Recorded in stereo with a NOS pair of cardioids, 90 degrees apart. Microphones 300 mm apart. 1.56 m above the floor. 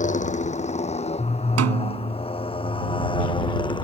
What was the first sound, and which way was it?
A motorcycle, 25° left.